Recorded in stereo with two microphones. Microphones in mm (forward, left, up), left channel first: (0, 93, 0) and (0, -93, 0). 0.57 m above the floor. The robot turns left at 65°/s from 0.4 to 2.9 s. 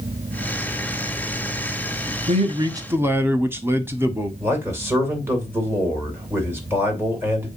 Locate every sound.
2.3 s a man speaking: 125° right, 0.9 m; by 4.3 s 165° right, 0.9 m
4.4 s a man speaking: 10° right (ahead or behind), 2.5 m